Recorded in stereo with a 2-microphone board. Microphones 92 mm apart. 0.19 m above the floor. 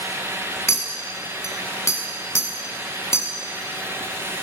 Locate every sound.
0.7 s a clink: 35° left (ahead or behind), 1.1 m